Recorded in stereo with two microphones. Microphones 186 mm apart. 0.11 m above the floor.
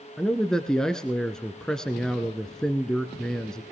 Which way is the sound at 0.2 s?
5° left (ahead or behind).